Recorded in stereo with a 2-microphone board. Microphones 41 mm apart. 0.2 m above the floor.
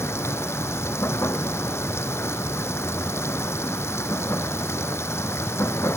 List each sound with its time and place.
0.0 s running water: 80° left